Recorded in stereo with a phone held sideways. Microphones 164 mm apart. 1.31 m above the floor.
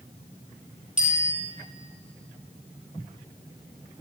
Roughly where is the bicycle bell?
Right.